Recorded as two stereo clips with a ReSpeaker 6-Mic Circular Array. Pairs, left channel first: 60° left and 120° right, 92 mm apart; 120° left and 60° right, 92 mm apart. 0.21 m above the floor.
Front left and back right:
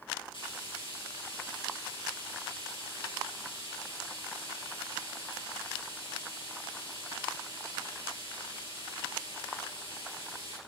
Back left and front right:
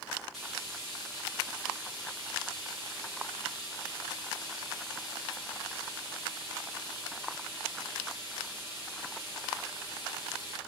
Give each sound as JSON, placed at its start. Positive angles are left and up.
{"t": 0.3, "sound": "frying", "azimuth_deg": 30, "distance_m": 9.5}